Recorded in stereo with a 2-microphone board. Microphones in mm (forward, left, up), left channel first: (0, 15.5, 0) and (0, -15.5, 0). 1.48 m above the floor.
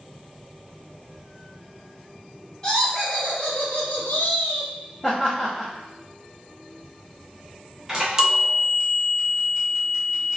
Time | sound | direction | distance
2.6 | laughter | 30° left (ahead or behind) | 1.6 m
5.0 | laughter | 15° left (ahead or behind) | 0.7 m
7.9 | a chime | 15° right (ahead or behind) | 0.9 m